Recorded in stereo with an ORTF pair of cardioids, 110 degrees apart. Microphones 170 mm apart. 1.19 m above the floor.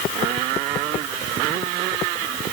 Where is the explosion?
No explosion in this recording.